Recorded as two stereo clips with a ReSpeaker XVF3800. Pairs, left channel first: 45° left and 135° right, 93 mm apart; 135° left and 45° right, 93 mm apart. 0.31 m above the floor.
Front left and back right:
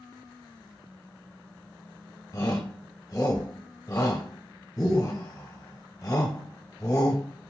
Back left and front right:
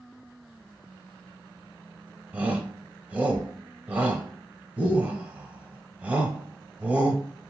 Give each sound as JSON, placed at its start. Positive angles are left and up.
{"t": 2.3, "sound": "a shout", "azimuth_deg": 20, "distance_m": 1.2}